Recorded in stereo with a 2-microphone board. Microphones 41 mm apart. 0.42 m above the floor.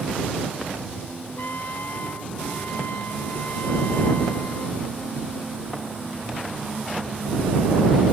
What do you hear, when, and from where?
1.4 s a trumpet: 55° left (ahead or behind)